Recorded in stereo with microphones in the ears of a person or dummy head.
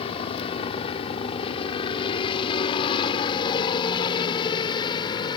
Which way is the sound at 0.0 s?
30° left (ahead or behind).